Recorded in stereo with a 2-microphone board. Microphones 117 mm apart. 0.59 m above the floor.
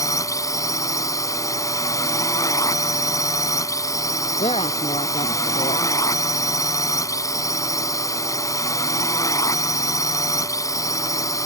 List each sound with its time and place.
0.0 s a drone: 30° left (ahead or behind)
4.4 s a woman speaking: 60° left (ahead or behind)